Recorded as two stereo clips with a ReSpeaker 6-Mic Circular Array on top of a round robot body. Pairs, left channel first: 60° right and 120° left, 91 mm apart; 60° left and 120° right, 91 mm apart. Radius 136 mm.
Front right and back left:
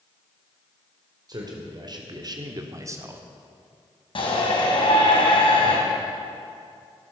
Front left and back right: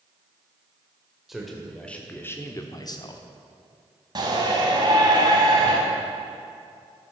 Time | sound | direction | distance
1.3 | a man speaking | 155° left | 2.5 m
4.2 | a shout | 80° right | 4.5 m